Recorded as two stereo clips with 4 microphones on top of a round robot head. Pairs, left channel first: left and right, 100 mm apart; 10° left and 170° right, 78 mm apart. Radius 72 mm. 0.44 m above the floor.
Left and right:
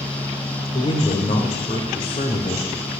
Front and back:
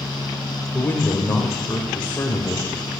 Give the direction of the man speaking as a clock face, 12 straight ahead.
9 o'clock.